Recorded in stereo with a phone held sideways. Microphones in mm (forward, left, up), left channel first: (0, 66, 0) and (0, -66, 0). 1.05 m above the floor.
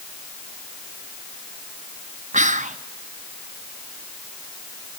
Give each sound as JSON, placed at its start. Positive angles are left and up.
{"t": 2.3, "sound": "whispering", "side_deg": -65, "distance_m": 0.7}